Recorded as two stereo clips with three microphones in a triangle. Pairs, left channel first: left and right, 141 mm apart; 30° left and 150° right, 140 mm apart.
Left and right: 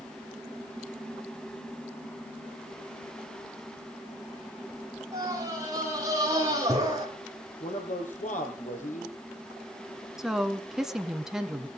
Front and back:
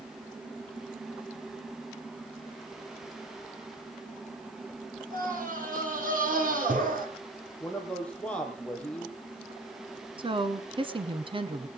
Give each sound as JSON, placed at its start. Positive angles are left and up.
{"t": 5.1, "sound": "a scream", "azimuth_deg": -155, "distance_m": 7.5}
{"t": 7.6, "sound": "a man speaking", "azimuth_deg": 110, "distance_m": 4.0}
{"t": 10.2, "sound": "a woman speaking", "azimuth_deg": -175, "distance_m": 1.3}